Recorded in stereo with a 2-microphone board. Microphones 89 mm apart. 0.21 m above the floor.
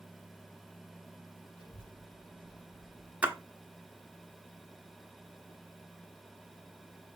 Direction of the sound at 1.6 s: 60° left (ahead or behind).